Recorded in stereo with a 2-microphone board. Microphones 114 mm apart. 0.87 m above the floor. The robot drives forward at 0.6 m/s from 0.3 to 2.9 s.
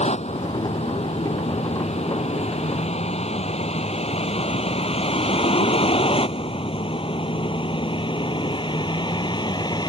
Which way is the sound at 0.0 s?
70° left (ahead or behind).